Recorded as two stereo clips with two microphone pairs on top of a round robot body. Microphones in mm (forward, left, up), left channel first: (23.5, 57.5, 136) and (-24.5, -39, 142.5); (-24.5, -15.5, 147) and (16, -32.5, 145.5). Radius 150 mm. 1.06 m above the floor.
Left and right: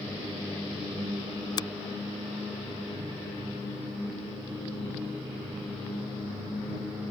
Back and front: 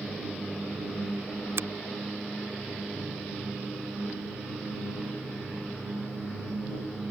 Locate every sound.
1.6 s a finger snap: 10° left